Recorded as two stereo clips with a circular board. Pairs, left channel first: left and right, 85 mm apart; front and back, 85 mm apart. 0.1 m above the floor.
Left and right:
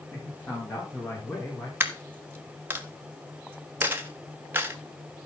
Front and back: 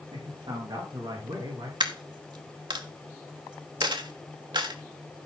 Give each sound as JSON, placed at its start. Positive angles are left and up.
{"t": 0.1, "sound": "a man speaking", "azimuth_deg": 160, "distance_m": 6.5}
{"t": 1.8, "sound": "a dropped coin", "azimuth_deg": -155, "distance_m": 1.6}